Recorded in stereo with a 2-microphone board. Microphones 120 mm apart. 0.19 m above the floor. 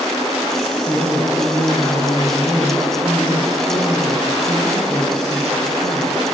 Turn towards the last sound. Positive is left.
turn(degrees=20)  # may be behind; listen again after turning